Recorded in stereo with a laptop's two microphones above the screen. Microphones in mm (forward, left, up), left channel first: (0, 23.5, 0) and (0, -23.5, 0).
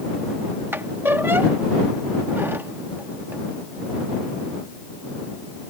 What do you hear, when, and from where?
0.7 s a squeak: 55° right (ahead or behind)